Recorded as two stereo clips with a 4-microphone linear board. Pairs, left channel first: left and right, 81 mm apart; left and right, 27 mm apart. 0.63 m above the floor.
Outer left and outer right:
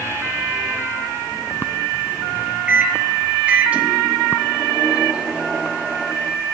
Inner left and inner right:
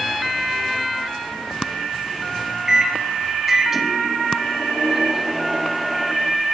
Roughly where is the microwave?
Centre.